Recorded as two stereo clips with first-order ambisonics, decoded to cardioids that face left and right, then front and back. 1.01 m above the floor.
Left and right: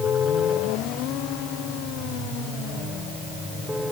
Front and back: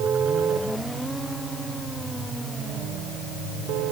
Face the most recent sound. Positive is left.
No sound to turn to.